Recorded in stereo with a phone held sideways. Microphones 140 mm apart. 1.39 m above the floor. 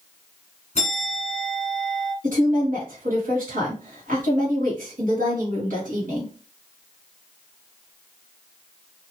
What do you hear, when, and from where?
0.8 s a bell: 50° left (ahead or behind), 1.3 m
2.2 s a woman speaking: 75° right (ahead or behind), 1.4 m